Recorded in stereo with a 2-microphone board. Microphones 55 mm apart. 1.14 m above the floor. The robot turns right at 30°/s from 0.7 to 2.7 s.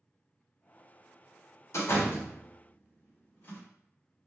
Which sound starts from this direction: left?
A door slam, at 1.7 s.